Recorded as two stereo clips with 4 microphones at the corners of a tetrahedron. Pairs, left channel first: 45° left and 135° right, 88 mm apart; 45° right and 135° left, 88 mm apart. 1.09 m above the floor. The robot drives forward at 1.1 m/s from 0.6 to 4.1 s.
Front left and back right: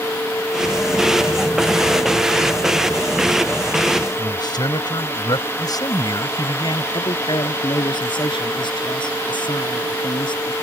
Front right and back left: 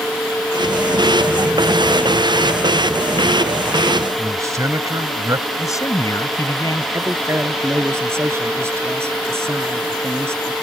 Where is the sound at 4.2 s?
80° left.